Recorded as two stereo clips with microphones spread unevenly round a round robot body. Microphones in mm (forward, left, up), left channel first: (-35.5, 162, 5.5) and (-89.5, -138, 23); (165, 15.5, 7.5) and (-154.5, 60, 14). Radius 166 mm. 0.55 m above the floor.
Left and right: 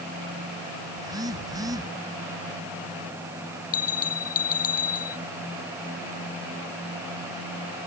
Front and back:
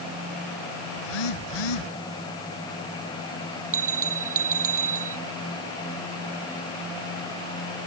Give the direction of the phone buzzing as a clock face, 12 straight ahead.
1 o'clock.